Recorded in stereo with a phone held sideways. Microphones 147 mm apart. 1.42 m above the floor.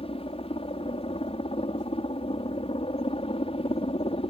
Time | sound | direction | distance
0.0 | a helicopter | 40° left (ahead or behind) | ?